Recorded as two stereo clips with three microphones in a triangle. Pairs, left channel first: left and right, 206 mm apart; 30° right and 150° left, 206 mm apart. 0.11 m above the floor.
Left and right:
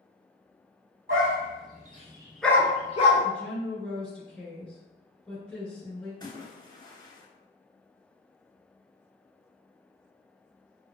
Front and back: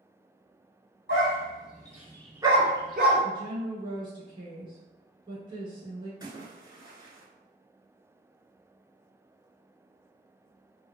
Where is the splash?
120° left, 0.6 m.